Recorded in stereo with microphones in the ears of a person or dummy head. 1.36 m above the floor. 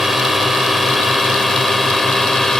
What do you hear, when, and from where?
0.0 s a drone: 5° right (ahead or behind); by 2.6 s centre (ahead or behind)